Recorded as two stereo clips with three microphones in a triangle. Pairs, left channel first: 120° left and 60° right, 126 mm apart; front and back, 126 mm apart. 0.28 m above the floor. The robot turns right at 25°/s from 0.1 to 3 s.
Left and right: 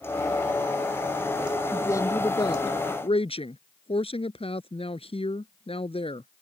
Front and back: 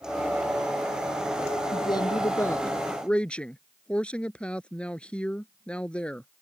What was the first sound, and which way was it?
A woman speaking, 50° left.